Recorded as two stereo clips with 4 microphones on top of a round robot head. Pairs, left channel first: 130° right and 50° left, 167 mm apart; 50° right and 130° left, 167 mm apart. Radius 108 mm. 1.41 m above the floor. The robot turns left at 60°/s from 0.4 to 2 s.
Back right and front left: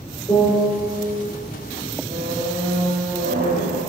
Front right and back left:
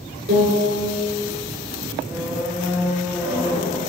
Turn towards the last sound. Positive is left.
turn(degrees=60)